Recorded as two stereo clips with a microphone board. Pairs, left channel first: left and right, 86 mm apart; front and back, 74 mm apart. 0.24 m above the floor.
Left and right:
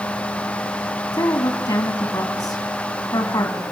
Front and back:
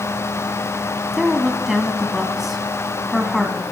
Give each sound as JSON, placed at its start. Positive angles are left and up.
{"t": 1.1, "sound": "a woman speaking", "azimuth_deg": 95, "distance_m": 1.9}